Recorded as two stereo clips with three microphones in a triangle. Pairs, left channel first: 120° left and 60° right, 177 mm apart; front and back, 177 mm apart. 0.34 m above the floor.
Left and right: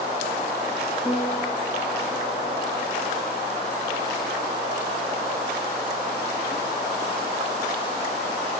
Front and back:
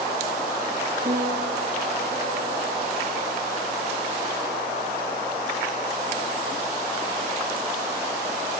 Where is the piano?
170° left, 7.5 m.